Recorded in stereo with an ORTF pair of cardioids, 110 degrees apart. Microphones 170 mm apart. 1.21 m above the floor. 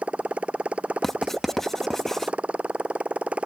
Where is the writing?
Straight ahead.